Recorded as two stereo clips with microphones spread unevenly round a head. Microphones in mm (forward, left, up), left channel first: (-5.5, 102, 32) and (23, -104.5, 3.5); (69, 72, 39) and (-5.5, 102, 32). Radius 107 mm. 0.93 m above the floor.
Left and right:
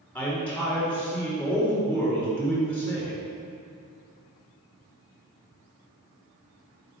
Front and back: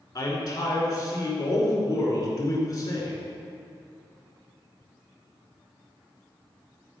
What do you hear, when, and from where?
0.1 s a man speaking: 15° left, 2.5 m